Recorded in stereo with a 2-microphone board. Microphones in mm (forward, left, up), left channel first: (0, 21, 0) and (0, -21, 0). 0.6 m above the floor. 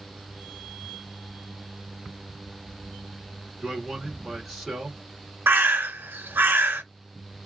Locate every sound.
3.6 s a man speaking: centre (ahead or behind), 1.4 m
5.5 s a bird: 60° right (ahead or behind), 0.9 m